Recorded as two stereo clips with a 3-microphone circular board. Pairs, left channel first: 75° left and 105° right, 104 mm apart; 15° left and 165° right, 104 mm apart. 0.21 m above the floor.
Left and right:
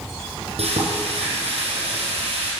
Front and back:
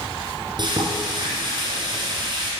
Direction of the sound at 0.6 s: 120° right.